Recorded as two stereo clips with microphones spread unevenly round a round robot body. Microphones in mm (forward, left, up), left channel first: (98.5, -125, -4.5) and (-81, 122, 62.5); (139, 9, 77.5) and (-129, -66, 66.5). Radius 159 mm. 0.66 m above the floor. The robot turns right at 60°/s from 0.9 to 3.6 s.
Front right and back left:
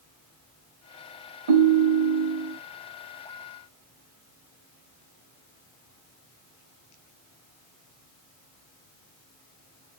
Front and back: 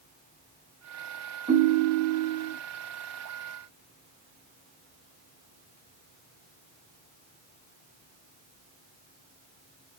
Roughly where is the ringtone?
Behind left.